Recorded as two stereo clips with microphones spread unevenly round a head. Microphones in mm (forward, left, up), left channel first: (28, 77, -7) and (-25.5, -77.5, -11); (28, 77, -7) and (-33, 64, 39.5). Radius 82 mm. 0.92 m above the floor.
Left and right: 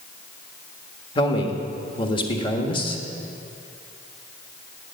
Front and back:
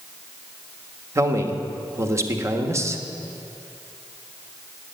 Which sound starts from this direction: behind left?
A man speaking, at 1.1 s.